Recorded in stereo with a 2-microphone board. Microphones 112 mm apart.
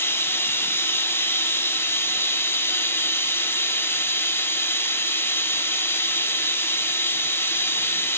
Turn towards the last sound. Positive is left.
turn(degrees=20)  # may be behind; listen again after turning